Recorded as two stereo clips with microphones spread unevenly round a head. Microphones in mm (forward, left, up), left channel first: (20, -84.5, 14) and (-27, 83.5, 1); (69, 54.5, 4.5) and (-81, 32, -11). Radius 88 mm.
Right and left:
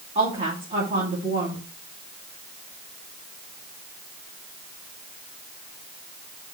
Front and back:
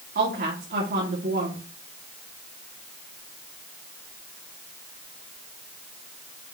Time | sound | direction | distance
0.1 | a woman speaking | 165° left | 2.5 m